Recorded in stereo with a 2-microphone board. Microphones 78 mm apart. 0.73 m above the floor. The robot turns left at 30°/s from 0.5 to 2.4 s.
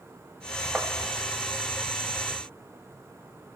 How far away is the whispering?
No whispering in this recording.